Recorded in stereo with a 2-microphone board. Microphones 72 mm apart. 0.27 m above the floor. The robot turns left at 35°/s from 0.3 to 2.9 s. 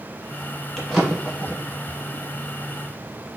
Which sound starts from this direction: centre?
A drawer, at 0.8 s.